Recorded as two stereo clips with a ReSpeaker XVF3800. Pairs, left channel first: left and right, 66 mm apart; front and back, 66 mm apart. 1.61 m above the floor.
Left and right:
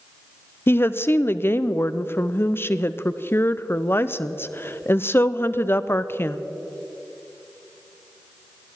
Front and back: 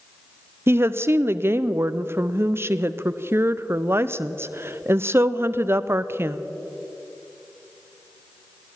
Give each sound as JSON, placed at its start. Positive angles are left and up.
{"t": 0.7, "sound": "a woman speaking", "azimuth_deg": 135, "distance_m": 0.5}